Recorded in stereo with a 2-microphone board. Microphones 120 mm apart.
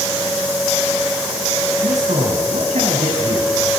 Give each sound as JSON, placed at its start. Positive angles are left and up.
{"t": 1.8, "sound": "a man speaking", "side_deg": -70, "distance_m": 4.5}